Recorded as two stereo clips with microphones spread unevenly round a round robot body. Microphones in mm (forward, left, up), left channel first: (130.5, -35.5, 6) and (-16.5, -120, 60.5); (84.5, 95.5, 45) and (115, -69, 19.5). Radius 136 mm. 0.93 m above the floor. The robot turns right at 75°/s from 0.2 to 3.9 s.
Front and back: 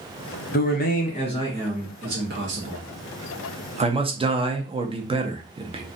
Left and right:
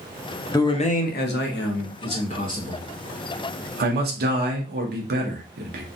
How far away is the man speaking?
About 0.8 m.